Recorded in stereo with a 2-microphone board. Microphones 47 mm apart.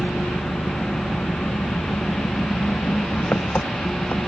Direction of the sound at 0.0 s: 35° left (ahead or behind).